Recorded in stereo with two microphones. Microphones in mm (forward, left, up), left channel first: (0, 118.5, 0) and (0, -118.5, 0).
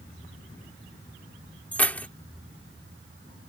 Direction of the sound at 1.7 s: 5° left (ahead or behind).